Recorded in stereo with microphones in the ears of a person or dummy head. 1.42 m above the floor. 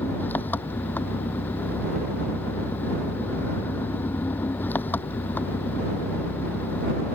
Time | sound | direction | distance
0.0 | an engine running | 15° left (ahead or behind) | ?